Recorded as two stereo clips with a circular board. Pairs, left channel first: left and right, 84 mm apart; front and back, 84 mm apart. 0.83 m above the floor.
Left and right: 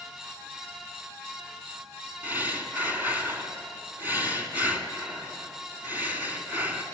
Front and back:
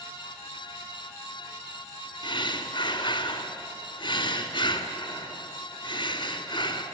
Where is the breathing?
20° right, 2 m.